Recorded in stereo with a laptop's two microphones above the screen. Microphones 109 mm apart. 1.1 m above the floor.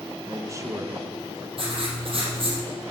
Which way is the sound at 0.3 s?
30° right (ahead or behind).